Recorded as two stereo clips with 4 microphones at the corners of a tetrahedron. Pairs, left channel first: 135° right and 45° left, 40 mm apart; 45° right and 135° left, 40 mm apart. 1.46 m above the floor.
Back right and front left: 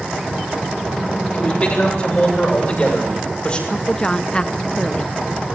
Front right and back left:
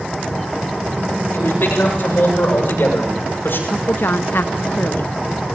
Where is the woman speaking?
70° right, 0.6 m.